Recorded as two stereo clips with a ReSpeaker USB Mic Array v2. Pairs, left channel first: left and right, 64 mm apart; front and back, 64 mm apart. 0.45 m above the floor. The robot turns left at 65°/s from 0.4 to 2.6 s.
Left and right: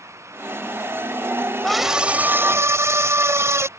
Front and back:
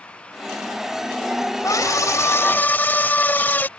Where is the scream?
5° left; by 3.7 s 55° right.